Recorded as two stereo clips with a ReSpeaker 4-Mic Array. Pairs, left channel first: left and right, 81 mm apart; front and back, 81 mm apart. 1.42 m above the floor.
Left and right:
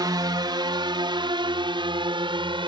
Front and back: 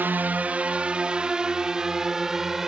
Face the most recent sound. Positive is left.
turn(degrees=-95)